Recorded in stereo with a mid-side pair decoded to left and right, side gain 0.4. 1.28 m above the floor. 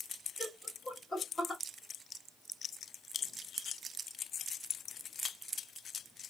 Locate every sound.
0.4 s laughter: 30° left, 1.8 m